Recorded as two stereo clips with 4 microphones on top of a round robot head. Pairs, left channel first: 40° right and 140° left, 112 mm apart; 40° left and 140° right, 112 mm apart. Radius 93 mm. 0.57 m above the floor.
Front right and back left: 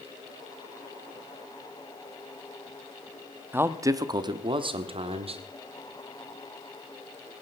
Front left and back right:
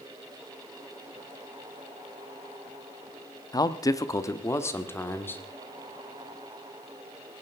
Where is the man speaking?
75° left, 1.0 m; by 5.4 s 115° left, 1.9 m.